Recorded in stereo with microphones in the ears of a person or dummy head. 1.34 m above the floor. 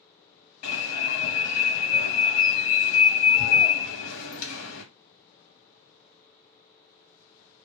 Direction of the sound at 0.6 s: 65° left (ahead or behind).